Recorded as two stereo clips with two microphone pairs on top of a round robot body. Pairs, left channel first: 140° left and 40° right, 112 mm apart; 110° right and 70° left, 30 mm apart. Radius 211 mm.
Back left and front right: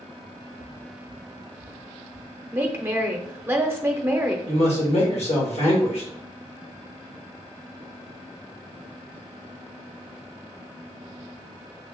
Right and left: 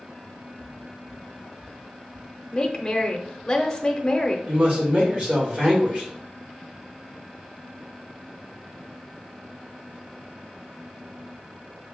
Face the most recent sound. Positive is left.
turn(degrees=115)